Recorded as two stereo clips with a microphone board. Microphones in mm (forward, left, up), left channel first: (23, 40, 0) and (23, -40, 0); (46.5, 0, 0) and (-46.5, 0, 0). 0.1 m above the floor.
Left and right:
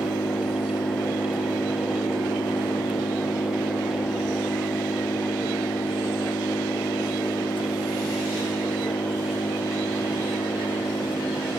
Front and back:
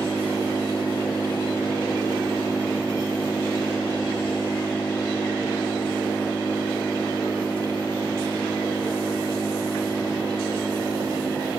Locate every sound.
0.0 s an engine running: 80° left